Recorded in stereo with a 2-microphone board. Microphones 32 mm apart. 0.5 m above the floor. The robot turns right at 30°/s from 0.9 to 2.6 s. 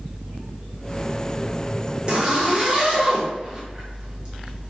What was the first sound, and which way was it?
A zipper, 30° right (ahead or behind).